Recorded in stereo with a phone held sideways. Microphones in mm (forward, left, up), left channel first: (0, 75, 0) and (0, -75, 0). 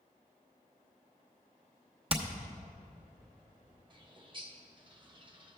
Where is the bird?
30° right (ahead or behind), 0.8 m.